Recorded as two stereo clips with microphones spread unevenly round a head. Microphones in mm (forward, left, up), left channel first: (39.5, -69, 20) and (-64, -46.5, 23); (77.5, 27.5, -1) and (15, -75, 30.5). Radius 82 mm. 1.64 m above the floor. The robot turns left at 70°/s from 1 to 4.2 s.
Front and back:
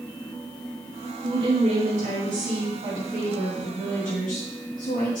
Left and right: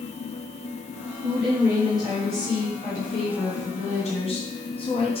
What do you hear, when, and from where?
1.2 s a woman speaking: 135° right, 3 m; by 5.2 s 15° left, 3 m